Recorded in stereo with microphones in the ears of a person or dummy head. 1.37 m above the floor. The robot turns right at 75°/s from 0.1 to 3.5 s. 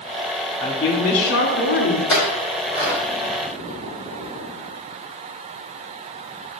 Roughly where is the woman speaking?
Ahead.